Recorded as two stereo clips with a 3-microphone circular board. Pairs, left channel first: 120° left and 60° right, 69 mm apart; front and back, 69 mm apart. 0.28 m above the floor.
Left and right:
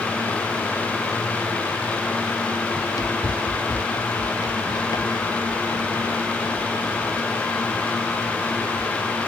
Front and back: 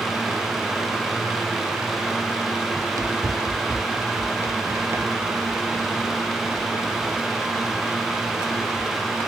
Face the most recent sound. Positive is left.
turn(degrees=115)